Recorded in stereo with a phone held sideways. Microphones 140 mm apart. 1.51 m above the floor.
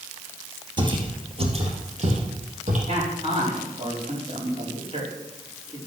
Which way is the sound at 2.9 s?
45° right (ahead or behind).